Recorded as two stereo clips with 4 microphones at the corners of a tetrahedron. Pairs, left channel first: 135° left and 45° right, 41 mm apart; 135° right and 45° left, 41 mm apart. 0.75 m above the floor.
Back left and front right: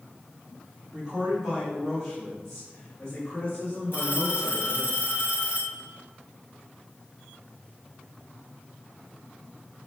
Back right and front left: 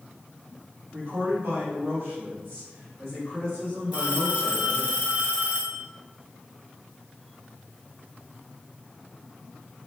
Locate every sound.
0.9 s a man speaking: 20° left, 1.3 m; by 4.9 s 100° left, 1.9 m
3.9 s a phone ringing: 105° left, 1.7 m